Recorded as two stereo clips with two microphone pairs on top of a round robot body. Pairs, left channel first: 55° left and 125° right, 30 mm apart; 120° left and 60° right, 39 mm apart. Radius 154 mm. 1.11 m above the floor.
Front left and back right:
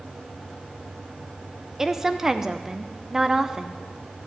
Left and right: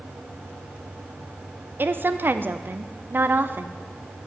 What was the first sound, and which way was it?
A woman speaking, 45° right.